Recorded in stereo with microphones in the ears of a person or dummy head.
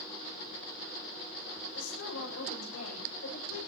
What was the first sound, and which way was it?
A woman speaking, 85° left.